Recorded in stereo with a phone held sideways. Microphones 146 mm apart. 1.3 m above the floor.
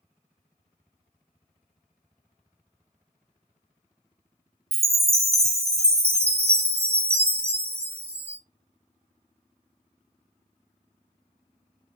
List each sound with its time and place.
4.7 s a chime: 45° right (ahead or behind), 0.6 m